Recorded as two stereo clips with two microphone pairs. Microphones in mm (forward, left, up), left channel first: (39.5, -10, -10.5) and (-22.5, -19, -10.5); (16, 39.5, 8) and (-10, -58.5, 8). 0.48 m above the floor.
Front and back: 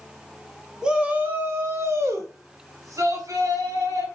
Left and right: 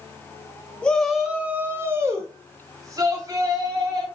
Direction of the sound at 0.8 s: 135° left.